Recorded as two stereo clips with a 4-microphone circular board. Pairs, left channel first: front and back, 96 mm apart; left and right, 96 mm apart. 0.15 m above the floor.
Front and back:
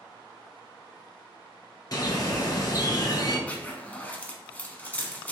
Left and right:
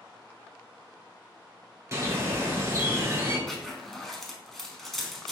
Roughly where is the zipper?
Ahead.